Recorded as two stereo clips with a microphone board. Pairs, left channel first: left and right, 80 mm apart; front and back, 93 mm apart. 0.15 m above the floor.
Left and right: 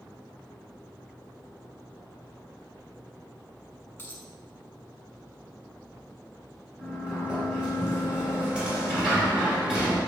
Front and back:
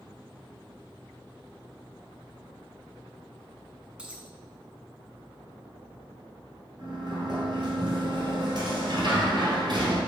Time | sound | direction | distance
4.0 | a dropped coin | 115° left | 0.7 m
6.8 | a sliding door | 165° right | 1.7 m